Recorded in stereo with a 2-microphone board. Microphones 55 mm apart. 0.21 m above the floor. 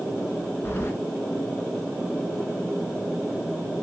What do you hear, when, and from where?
0.7 s keys jangling: 45° left (ahead or behind), 1.7 m